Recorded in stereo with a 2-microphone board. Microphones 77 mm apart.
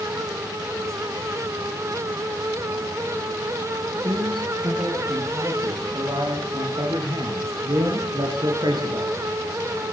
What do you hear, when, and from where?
4.0 s a man speaking: 75° right (ahead or behind), 7.5 m; by 9.2 s 70° right (ahead or behind), 4.5 m